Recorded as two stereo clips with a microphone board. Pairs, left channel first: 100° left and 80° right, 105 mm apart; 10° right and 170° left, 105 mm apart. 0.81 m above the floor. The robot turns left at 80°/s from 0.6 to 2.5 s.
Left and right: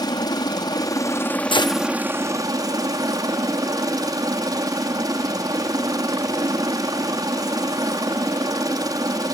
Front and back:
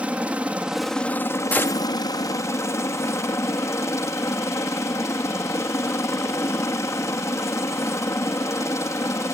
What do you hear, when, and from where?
0.0 s a helicopter: 100° left; by 9.3 s 55° right
1.5 s a gunshot: 65° left; by 1.9 s 35° left